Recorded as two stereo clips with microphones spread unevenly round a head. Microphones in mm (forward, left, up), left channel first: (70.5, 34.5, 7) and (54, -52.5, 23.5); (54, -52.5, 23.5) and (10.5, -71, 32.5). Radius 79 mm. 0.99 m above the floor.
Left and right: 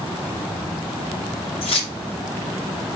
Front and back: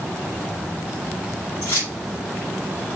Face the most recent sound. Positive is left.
turn(degrees=70)